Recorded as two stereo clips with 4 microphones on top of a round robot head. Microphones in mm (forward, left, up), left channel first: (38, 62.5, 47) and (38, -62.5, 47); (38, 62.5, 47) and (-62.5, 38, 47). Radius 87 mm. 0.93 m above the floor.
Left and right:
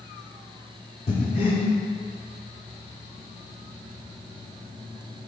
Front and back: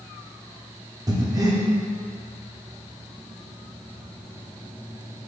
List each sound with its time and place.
1.1 s breathing: 140° left, 1.2 m